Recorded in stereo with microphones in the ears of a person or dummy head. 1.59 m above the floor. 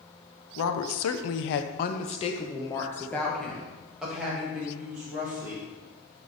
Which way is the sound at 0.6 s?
70° left (ahead or behind).